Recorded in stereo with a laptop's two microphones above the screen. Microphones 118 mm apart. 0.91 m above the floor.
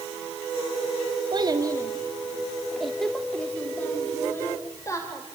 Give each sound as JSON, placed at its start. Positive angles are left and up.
{"t": 1.3, "sound": "a child speaking", "side_deg": -40, "distance_m": 1.3}